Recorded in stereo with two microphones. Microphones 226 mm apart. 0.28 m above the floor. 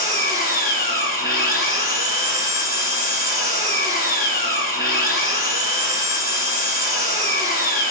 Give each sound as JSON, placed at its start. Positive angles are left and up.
{"t": 0.0, "sound": "an engine running", "side_deg": 40, "distance_m": 1.8}